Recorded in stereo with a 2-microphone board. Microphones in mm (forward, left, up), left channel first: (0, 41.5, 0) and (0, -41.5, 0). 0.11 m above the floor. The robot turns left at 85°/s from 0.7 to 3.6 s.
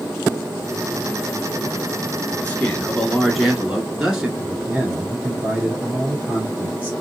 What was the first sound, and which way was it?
A man speaking, 20° left (ahead or behind).